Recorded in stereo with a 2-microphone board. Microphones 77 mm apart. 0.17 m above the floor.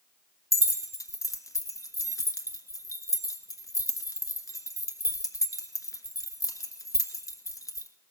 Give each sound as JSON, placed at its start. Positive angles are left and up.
{"t": 0.5, "sound": "keys jangling", "side_deg": 50, "distance_m": 1.4}